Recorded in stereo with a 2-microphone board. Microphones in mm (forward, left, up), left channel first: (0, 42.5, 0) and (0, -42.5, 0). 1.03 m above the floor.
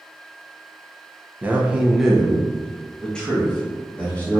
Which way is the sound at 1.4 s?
20° right (ahead or behind).